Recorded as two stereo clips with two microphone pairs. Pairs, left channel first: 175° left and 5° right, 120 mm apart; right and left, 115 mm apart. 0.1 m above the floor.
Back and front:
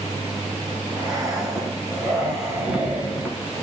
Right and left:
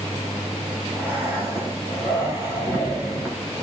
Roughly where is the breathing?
Ahead left.